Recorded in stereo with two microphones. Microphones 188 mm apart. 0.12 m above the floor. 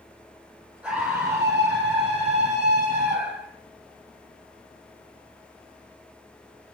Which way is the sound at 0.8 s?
5° right (ahead or behind).